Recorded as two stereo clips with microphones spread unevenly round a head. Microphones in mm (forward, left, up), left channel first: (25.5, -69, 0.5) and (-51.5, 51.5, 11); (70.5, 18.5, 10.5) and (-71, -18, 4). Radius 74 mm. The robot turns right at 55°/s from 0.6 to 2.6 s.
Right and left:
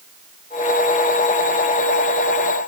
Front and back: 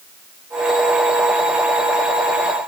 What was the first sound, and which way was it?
Only background noise.